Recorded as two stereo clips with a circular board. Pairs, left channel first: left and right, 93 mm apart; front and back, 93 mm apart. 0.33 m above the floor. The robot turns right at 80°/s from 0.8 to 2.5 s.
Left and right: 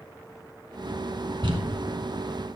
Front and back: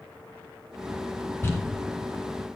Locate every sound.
1.4 s crumpling: 65° right, 1.2 m; by 1.6 s 50° right, 1.2 m